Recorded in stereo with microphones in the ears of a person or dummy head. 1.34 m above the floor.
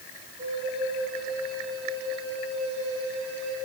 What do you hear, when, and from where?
0.4 s a flute: 30° right (ahead or behind), 7.5 m